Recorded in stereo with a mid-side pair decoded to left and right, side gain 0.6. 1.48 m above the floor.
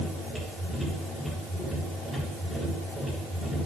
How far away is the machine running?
About 8 m.